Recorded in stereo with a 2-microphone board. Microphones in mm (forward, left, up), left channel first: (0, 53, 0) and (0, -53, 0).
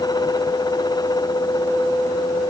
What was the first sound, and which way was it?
Only background noise.